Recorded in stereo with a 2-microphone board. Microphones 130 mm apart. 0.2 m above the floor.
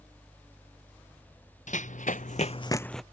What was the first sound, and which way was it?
Running footsteps, 70° left (ahead or behind).